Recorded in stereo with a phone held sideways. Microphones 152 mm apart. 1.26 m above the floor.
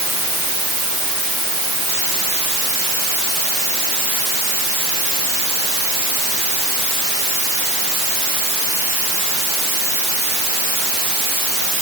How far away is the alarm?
No alarm in this recording.